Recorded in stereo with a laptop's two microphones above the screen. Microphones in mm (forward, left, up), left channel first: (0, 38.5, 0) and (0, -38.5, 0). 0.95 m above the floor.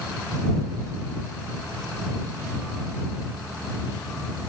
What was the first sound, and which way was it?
Only background noise.